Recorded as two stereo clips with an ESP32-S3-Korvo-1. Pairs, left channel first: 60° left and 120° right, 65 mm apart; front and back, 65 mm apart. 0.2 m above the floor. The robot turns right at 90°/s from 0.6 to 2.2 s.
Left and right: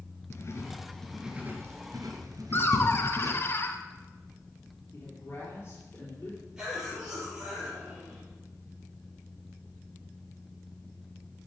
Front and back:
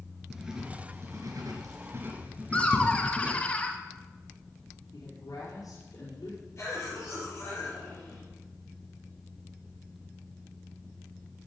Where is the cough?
40° right, 4.5 m.